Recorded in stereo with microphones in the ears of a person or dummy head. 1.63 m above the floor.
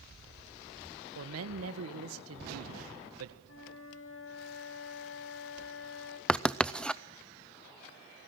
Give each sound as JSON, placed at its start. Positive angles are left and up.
{"t": 1.1, "sound": "a man speaking", "side_deg": -85, "distance_m": 1.8}
{"t": 3.5, "sound": "a flute", "side_deg": 80, "distance_m": 5.0}
{"t": 6.3, "sound": "writing", "side_deg": 5, "distance_m": 0.6}